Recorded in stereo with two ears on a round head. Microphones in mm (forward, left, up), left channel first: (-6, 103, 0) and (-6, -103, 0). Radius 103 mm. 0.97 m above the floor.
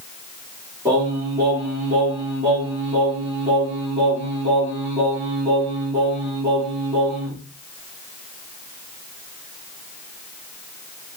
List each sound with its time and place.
0.8 s singing: 15° right (ahead or behind), 2 m